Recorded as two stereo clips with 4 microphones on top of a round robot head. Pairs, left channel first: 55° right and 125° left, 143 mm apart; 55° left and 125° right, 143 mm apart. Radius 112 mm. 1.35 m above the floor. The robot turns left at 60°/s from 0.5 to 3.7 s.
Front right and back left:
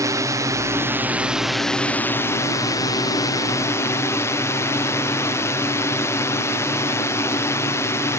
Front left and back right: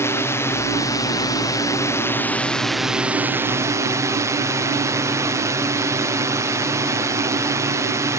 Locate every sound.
0.0 s a drone: 100° left; by 8.2 s 95° right